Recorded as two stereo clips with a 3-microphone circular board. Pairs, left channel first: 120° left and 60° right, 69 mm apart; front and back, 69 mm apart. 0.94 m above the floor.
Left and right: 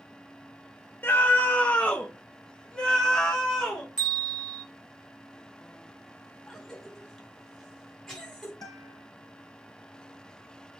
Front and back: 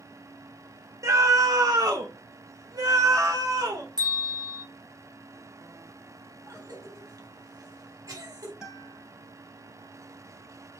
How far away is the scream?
About 0.8 m.